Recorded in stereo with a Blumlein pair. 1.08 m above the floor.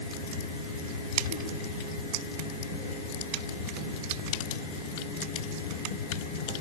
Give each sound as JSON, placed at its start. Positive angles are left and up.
{"t": 0.0, "sound": "a fan", "azimuth_deg": 55, "distance_m": 3.5}